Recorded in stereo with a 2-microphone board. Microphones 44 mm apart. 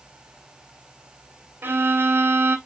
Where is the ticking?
No ticking in this recording.